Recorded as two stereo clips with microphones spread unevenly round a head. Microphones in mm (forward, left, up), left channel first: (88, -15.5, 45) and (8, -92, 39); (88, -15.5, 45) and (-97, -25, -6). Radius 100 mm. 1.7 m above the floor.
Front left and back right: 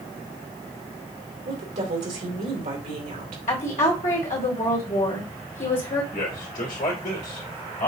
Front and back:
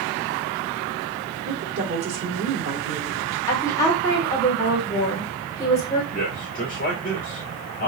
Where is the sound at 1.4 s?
155° right, 2.5 m.